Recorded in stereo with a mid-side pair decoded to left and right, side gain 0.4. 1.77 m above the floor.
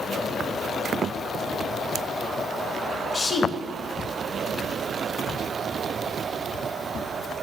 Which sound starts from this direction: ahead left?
A woman speaking, at 3.1 s.